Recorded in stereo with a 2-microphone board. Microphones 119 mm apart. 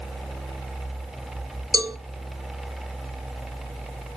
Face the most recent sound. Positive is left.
turn(degrees=-30)  # may be behind; listen again after turning